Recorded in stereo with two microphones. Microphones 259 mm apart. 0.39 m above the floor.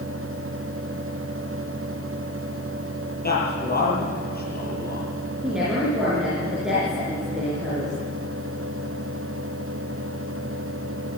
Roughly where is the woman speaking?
Centre.